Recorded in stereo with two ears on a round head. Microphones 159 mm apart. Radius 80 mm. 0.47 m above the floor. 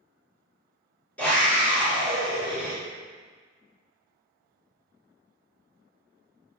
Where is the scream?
5° left (ahead or behind), 1.3 m; by 2.7 s 30° right (ahead or behind), 1.3 m.